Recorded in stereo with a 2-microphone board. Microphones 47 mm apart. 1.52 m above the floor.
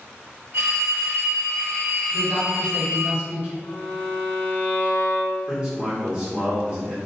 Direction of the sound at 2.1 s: 40° right (ahead or behind).